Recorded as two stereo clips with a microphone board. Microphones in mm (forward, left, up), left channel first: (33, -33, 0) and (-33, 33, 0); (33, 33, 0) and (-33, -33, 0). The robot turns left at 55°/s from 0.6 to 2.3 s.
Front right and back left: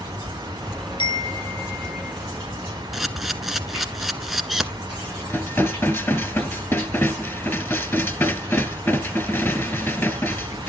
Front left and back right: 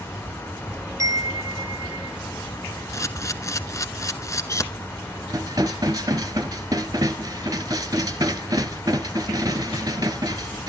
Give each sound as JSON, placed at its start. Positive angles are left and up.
{"t": 1.0, "sound": "a chime", "azimuth_deg": -75, "distance_m": 0.6}
{"t": 2.9, "sound": "a camera shutter", "azimuth_deg": 50, "distance_m": 0.8}
{"t": 5.3, "sound": "dishes clattering", "azimuth_deg": -100, "distance_m": 1.3}